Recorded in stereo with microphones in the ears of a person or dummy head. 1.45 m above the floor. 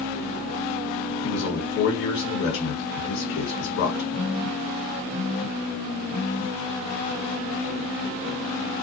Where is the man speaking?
60° left (ahead or behind), 1.1 m.